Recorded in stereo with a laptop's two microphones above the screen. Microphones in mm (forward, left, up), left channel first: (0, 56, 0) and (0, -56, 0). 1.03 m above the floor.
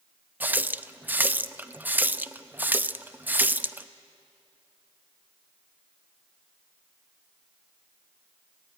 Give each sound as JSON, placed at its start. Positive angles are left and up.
{"t": 0.4, "sound": "a running tap", "side_deg": -15, "distance_m": 0.6}